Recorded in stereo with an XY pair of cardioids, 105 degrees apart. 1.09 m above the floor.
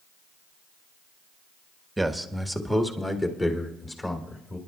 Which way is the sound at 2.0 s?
10° right.